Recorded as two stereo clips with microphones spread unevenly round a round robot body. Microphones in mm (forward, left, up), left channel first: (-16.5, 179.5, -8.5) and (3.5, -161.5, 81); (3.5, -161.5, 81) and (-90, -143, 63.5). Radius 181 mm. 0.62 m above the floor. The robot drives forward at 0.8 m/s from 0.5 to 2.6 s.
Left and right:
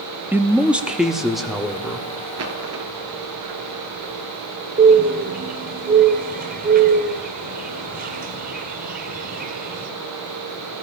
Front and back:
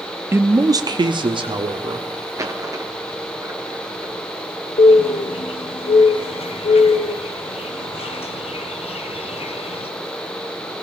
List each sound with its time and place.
0.3 s a man speaking: 170° left, 0.6 m; by 2.1 s straight behind, 1.7 m
2.4 s a dropped coin: 130° right, 1.9 m; by 4.1 s 135° right, 2 m
4.8 s a bird: 20° right, 0.8 m